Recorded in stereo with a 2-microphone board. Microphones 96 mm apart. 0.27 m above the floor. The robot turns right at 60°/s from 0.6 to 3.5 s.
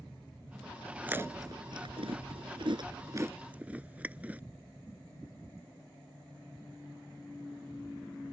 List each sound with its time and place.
1.0 s chewing: 15° right (ahead or behind)